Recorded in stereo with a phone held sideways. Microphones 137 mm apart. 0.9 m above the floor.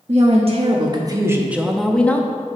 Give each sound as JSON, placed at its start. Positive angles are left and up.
{"t": 0.1, "sound": "a woman speaking", "side_deg": -55, "distance_m": 1.1}